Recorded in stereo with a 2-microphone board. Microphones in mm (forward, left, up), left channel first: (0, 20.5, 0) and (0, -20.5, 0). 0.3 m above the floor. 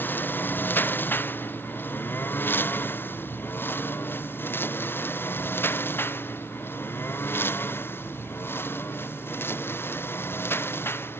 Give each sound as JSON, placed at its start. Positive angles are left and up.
{"t": 0.0, "sound": "a lawn mower", "side_deg": 55}